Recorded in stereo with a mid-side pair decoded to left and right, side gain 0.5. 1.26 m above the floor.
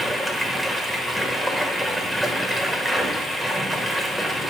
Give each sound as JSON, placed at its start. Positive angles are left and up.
{"t": 0.0, "sound": "running water", "azimuth_deg": -15, "distance_m": 1.4}